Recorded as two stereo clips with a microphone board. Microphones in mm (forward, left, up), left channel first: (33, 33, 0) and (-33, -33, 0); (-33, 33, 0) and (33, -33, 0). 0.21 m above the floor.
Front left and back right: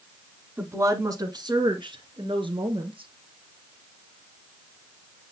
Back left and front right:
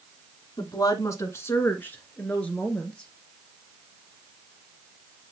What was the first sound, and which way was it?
A woman speaking, 165° left.